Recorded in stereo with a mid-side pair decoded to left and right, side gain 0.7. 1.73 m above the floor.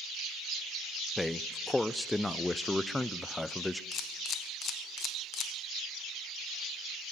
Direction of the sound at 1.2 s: 10° left.